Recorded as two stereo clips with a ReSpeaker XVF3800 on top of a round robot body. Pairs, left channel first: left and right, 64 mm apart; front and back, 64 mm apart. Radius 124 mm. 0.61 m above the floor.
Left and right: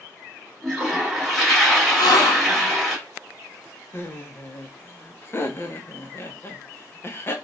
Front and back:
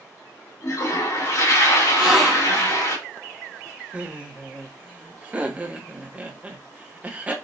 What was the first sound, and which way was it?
A toilet flushing, 5° left.